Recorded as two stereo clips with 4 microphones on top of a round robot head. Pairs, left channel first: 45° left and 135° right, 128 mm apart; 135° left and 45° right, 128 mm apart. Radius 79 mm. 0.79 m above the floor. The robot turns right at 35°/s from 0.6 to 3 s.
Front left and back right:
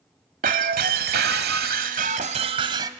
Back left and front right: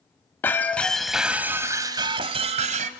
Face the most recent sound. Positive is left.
turn(degrees=-70)